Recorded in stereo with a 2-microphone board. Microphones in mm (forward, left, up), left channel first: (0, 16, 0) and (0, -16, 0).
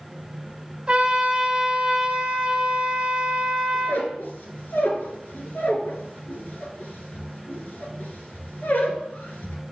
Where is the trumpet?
25° right (ahead or behind), 1.3 m.